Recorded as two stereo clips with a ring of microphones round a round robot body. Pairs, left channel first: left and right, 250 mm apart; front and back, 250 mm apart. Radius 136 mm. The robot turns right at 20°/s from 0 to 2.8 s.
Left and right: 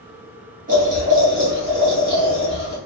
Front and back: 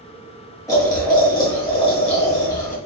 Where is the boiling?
70° right, 1.4 m; by 2.8 s 25° right, 1.4 m.